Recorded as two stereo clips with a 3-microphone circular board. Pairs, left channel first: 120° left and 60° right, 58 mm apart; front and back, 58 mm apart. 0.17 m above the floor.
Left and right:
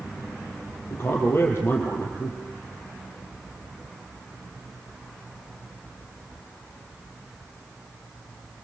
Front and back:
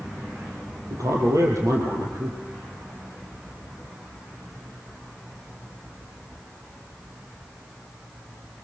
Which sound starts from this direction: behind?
A man speaking, at 0.9 s.